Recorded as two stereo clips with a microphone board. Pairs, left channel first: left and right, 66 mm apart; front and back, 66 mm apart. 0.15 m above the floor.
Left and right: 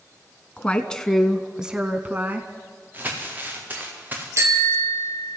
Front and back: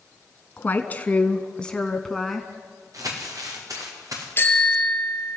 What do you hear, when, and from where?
0.6 s a woman speaking: 35° left, 1.5 m; by 2.5 s 90° right, 1.5 m
2.9 s crumpling: 150° right, 6 m
4.4 s a bicycle bell: 55° right, 2.5 m